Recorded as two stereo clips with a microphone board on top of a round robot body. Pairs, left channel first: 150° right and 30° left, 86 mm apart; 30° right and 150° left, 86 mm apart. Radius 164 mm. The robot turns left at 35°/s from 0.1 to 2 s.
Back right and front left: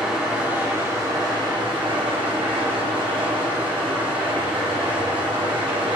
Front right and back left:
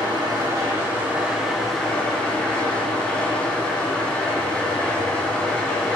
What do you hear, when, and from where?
0.0 s an engine running: 115° left, 2.0 m; by 6.0 s 50° left, 2.0 m